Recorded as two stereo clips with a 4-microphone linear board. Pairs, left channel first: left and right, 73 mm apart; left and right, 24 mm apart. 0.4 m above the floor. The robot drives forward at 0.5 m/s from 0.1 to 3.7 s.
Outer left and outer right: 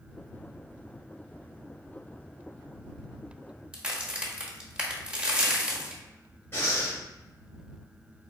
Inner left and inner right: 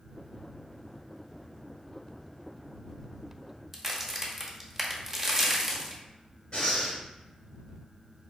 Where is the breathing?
30° left (ahead or behind), 1.6 m.